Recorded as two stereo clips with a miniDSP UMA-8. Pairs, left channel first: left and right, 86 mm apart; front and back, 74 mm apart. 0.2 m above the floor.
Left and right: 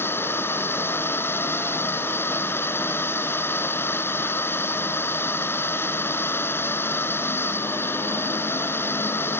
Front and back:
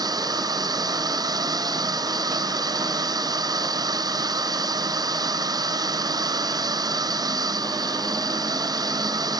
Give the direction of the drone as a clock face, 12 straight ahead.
7 o'clock.